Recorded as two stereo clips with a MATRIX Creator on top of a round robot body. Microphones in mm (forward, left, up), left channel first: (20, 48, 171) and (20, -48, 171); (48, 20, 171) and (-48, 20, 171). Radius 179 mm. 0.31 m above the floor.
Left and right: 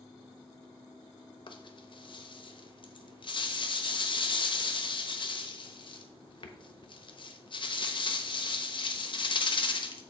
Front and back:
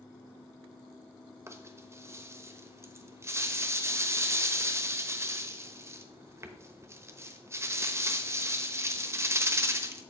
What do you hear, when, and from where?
1.5 s a rattle: 120° left, 1.0 m